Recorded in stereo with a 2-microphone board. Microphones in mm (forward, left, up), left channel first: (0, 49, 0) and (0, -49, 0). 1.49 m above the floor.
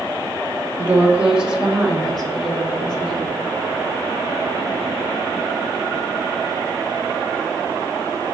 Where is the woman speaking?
25° right (ahead or behind), 1.1 m; by 3.4 s 10° left (ahead or behind), 3 m.